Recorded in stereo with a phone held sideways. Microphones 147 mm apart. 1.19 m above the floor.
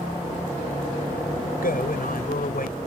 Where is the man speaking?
75° left (ahead or behind).